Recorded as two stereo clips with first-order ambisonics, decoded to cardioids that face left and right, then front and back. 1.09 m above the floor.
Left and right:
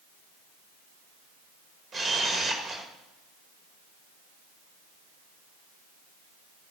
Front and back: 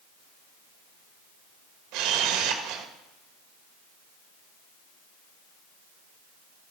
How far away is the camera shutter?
About 1.7 m.